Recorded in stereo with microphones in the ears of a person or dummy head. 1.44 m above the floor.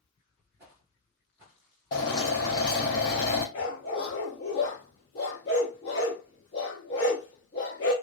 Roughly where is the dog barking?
Left.